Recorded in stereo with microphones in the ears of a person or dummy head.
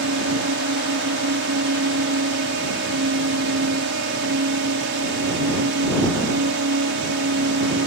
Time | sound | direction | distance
0.0 | a drone | 50° right (ahead or behind) | ?